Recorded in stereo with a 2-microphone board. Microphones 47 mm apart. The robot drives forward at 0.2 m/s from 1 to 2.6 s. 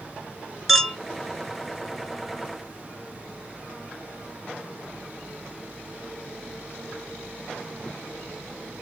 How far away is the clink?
About 0.9 m.